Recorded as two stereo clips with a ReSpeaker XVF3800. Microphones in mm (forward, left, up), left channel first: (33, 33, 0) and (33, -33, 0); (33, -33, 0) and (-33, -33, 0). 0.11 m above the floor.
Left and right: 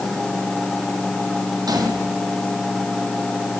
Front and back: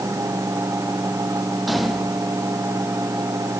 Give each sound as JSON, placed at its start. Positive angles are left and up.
{"t": 1.7, "sound": "a gunshot", "azimuth_deg": -90, "distance_m": 4.5}